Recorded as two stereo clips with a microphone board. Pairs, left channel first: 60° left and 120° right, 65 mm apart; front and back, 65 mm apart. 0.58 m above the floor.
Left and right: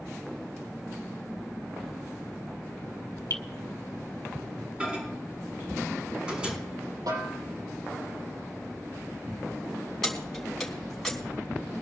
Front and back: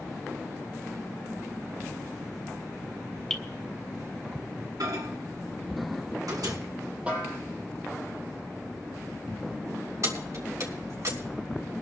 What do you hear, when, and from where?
3.3 s dripping: 80° left, 1.8 m
4.8 s a microwave: 165° left, 5.5 m
7.1 s a snare drum: 110° right, 7 m
10.0 s keys jangling: 145° left, 4 m